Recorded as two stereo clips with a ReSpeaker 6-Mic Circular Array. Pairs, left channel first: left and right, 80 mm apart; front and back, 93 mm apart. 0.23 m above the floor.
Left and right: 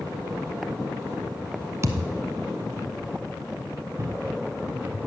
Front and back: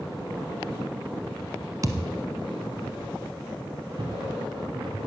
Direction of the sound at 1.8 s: 135° right.